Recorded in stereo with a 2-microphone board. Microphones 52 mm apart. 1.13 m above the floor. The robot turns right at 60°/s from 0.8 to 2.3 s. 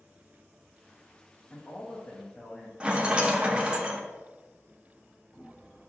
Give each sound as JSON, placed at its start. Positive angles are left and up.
{"t": 1.5, "sound": "a man speaking", "azimuth_deg": 60, "distance_m": 0.5}
{"t": 2.8, "sound": "a rattle", "side_deg": -20, "distance_m": 0.6}